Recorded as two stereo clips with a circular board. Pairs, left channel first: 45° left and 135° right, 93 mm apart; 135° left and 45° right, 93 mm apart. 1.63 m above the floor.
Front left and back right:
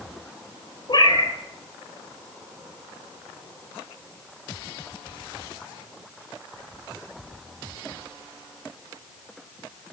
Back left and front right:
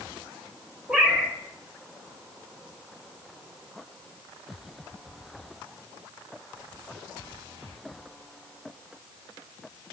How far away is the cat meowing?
About 1.7 m.